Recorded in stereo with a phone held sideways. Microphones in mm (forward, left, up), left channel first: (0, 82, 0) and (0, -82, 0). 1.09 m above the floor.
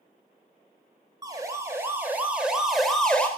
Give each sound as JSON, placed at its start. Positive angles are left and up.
{"t": 1.2, "sound": "a siren", "side_deg": -20, "distance_m": 5.0}